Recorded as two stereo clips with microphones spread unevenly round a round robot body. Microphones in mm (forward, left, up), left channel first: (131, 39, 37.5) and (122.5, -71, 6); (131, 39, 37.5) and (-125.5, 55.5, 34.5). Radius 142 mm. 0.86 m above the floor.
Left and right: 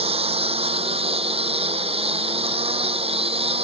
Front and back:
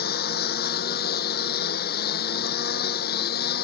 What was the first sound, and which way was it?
A lawn mower, 60° right.